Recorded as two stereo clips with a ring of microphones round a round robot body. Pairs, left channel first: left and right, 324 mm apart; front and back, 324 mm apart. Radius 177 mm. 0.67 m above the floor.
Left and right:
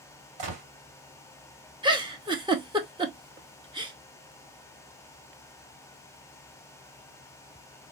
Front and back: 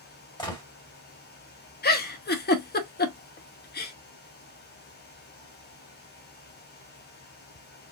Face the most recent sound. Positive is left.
turn(degrees=-25)